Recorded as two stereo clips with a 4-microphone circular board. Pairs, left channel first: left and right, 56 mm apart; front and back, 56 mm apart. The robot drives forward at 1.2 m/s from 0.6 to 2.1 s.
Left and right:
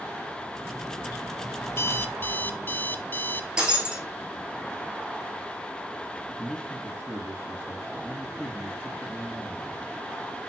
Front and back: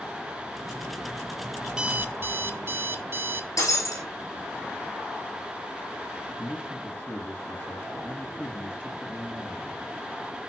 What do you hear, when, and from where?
1.7 s an alarm clock: 95° left, 0.6 m; by 3.5 s 140° left, 0.8 m
3.6 s breaking glass: 15° right, 4.5 m
6.3 s a man speaking: 25° left, 2 m